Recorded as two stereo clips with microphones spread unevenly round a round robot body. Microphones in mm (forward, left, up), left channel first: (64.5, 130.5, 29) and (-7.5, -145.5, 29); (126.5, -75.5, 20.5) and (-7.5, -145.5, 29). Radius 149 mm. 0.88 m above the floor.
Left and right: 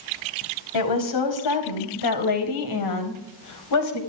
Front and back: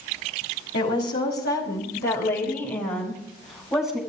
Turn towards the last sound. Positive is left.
turn(degrees=110)